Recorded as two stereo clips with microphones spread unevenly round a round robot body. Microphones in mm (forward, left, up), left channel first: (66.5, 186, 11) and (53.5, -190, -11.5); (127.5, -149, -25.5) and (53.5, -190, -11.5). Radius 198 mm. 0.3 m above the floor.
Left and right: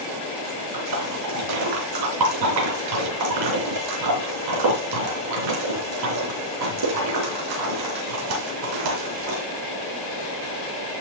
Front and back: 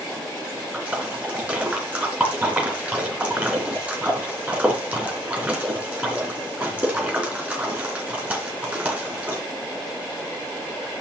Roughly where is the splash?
Right.